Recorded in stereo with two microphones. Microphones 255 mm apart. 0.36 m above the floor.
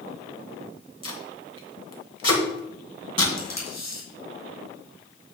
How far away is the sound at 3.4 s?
About 4 m.